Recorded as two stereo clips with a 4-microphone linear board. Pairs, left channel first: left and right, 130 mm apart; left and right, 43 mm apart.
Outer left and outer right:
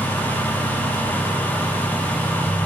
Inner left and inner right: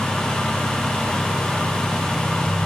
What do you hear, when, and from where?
Only background noise.